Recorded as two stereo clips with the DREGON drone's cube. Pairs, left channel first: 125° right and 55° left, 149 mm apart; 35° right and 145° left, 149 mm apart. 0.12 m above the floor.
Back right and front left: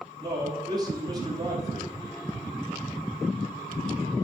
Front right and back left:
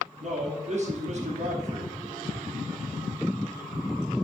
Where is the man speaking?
120° left, 3 m.